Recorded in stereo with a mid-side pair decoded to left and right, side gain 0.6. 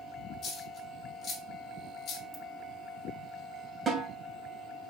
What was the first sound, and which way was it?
A dropped coin, 40° left.